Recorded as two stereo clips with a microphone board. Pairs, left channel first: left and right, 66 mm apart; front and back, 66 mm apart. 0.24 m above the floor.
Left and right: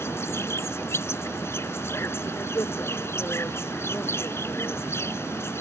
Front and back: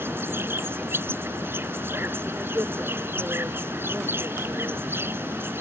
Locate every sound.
0.0 s an insect: 130° left